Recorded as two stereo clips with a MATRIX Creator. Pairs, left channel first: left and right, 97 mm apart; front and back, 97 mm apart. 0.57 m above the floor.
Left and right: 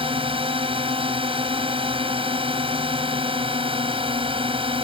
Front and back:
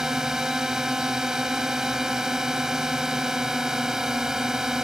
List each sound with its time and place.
0.0 s a drone: 95° right